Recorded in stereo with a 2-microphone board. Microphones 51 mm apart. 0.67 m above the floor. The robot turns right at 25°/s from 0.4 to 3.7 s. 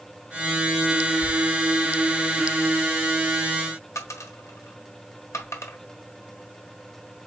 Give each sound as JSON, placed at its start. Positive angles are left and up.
{"t": 1.2, "sound": "a thud", "side_deg": -15, "distance_m": 1.6}
{"t": 4.0, "sound": "a dropped coin", "side_deg": 80, "distance_m": 1.2}